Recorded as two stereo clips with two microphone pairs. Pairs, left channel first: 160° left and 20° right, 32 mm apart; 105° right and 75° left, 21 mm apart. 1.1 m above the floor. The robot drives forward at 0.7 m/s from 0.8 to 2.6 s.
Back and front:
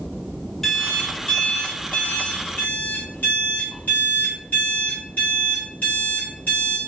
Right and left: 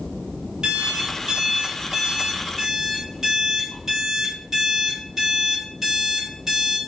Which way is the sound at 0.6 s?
70° left.